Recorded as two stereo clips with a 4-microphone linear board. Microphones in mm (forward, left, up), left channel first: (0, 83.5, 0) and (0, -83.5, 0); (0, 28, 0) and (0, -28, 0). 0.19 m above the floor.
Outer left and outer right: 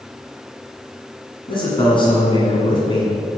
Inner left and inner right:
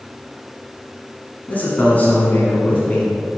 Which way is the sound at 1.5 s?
30° left (ahead or behind).